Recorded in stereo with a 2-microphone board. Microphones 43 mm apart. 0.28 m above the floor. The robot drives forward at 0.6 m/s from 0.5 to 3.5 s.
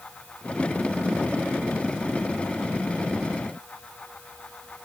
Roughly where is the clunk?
No clunk in this recording.